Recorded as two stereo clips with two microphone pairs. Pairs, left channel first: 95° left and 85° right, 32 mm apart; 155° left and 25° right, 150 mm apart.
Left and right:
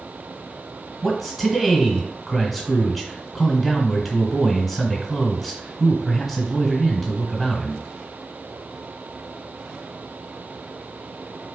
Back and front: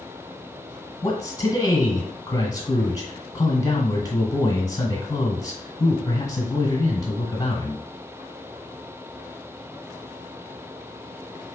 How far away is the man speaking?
About 1.4 m.